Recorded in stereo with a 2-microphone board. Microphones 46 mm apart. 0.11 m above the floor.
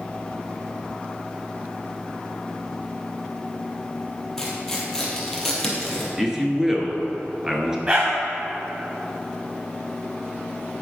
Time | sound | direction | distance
4.4 | tearing paper | 10° left (ahead or behind) | 1.8 m
6.2 | a man speaking | 10° right (ahead or behind) | 1.3 m
7.9 | a dog barking | 25° right (ahead or behind) | 2.5 m